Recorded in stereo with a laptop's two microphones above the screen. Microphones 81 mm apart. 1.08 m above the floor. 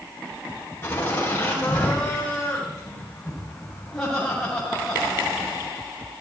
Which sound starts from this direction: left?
Laughter, at 0.8 s.